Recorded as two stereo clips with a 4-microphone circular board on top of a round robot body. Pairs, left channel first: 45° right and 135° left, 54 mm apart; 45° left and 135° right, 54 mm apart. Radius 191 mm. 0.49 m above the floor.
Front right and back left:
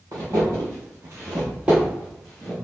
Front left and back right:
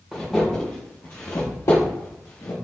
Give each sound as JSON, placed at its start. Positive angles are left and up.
{"t": 0.1, "sound": "footsteps", "azimuth_deg": 145, "distance_m": 0.9}